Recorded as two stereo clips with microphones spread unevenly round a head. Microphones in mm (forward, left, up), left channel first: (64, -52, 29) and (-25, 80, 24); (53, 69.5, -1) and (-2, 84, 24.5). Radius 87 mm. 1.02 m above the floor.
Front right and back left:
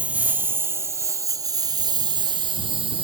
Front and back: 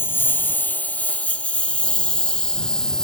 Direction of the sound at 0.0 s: 40° left.